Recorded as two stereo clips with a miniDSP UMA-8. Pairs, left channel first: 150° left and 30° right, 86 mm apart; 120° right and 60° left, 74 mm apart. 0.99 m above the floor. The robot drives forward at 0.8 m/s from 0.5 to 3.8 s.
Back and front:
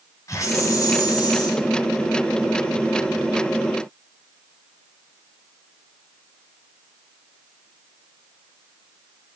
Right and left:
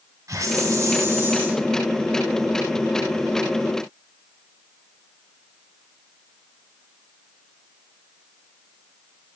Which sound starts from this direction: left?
A hiss, at 0.3 s.